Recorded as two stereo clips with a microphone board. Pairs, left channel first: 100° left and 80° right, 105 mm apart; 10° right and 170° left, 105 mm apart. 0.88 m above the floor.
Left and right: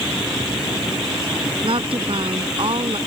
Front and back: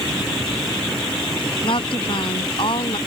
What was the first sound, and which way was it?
A woman speaking, 45° right.